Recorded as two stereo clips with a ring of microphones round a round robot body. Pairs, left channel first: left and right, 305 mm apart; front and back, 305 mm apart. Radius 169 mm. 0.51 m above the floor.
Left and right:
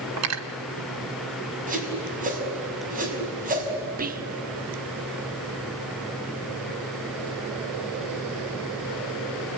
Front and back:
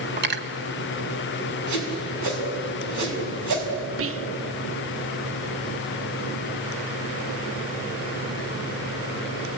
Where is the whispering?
145° right, 1.1 m.